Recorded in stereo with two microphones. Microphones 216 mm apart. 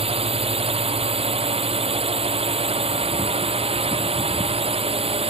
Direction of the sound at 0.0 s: 25° right (ahead or behind).